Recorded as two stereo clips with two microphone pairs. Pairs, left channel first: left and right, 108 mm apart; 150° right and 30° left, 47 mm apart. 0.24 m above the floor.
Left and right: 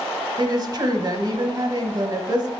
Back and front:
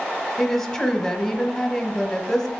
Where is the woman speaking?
85° right, 1.2 m.